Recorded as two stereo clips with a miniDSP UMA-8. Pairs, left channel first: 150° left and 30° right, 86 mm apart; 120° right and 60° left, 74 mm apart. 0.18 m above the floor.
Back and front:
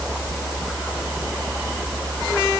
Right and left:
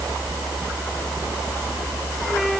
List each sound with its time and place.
Only background noise.